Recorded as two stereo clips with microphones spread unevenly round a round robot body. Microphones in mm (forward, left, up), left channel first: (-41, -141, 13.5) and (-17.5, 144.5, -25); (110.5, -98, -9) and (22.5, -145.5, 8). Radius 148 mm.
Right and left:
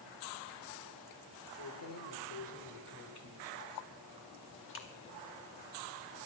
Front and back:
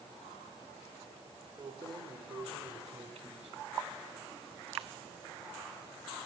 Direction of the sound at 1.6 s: 100° right.